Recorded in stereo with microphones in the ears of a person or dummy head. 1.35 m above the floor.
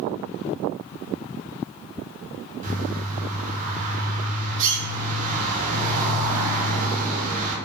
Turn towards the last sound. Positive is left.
turn(degrees=-45)  # may be behind; listen again after turning